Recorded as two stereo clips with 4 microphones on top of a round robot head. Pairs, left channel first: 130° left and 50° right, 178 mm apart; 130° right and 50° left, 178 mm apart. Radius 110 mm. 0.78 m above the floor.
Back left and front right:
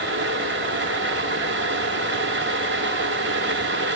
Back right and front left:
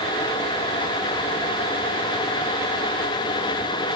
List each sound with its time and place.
Only background noise.